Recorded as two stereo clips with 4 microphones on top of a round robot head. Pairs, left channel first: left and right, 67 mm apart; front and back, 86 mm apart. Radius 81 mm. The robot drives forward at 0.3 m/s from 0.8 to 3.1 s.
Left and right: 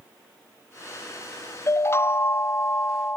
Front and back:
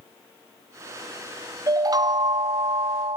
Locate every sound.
1.7 s a chime: 135° left; by 3.2 s 150° left